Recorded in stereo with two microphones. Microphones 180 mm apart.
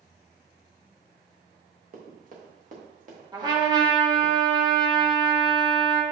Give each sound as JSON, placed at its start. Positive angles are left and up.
{"t": 1.9, "sound": "running footsteps", "side_deg": -50, "distance_m": 2.5}
{"t": 3.3, "sound": "a trumpet", "side_deg": -25, "distance_m": 1.5}